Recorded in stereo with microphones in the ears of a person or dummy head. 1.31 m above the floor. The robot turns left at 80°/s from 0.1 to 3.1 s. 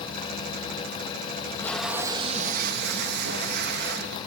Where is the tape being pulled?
35° left, 0.9 m; by 4.2 s 100° right, 0.9 m.